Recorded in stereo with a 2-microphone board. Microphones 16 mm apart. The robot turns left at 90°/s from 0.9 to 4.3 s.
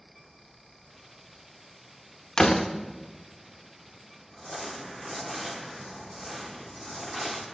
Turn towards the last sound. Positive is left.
turn(degrees=15)  # may be behind; listen again after turning